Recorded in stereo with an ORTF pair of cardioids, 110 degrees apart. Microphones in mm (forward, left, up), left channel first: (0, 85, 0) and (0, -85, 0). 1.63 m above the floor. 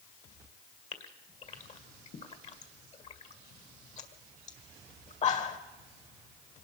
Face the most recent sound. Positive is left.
turn(degrees=40)